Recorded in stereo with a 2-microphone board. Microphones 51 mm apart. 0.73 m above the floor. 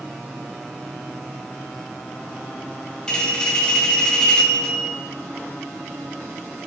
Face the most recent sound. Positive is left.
turn(degrees=15)  # may be behind; listen again after turning